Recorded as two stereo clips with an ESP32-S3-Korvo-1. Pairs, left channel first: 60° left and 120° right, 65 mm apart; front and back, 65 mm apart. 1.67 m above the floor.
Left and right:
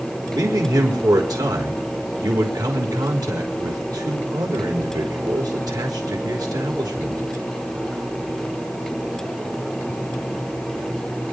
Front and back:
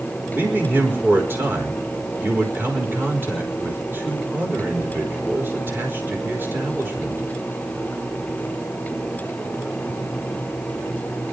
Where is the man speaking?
125° right, 5 m.